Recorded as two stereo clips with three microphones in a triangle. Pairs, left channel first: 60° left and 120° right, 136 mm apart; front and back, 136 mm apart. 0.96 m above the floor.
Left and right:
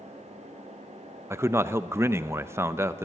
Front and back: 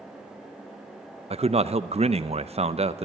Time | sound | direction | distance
1.3 | a man speaking | 175° left | 0.6 m